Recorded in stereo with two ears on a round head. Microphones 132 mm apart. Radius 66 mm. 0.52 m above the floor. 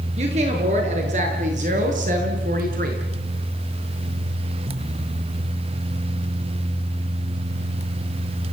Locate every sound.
0.2 s a woman speaking: 45° right (ahead or behind), 7 m; by 3.0 s 65° right (ahead or behind), 5.5 m